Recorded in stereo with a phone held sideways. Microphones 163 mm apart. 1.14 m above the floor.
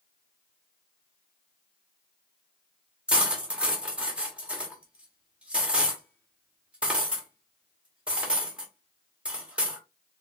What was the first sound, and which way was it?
Cutlery clinking, 5° right (ahead or behind).